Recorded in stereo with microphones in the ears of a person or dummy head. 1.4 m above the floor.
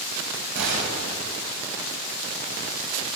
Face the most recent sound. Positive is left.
turn(degrees=-60)  # may be behind; listen again after turning